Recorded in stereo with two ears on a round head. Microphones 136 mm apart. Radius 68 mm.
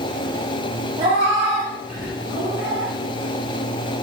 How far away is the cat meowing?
About 0.8 m.